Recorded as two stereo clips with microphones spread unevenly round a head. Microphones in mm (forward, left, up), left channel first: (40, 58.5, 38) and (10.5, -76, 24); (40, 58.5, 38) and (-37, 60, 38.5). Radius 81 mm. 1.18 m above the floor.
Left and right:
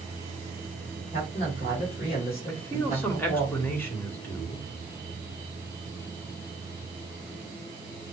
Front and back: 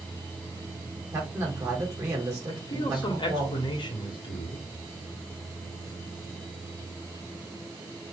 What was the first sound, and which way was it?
A man speaking, 130° left.